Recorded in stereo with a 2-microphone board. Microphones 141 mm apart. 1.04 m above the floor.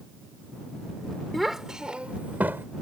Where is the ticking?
I don't hear ticking.